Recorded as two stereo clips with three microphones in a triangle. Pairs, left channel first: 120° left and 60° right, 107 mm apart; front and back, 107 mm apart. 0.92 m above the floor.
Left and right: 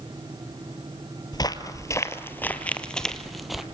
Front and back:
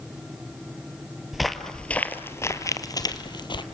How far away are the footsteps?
About 1.2 m.